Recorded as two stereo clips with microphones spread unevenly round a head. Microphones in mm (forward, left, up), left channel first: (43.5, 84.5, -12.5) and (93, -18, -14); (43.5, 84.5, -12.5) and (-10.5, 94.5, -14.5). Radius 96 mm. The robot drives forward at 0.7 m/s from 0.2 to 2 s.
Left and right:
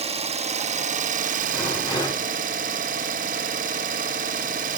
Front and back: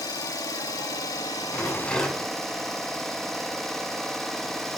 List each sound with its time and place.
0.0 s an engine running: 35° right, 1.4 m; by 4.8 s 100° right, 0.8 m
1.5 s a rattle: 60° left, 8.5 m